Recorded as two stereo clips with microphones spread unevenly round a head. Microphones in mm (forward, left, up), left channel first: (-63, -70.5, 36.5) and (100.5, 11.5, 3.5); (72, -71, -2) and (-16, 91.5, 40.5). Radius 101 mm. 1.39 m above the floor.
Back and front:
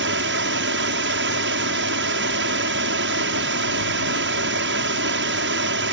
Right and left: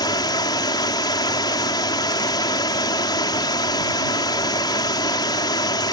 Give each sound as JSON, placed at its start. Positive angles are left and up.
{"t": 0.0, "sound": "running water", "azimuth_deg": 10}